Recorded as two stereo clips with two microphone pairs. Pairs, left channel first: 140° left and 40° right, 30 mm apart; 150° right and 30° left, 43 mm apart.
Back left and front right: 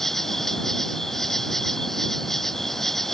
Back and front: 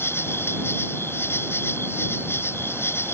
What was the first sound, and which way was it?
An insect, 140° right.